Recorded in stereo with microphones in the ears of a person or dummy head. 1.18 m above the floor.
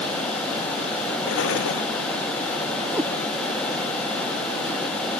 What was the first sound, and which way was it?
An explosion, 80° left.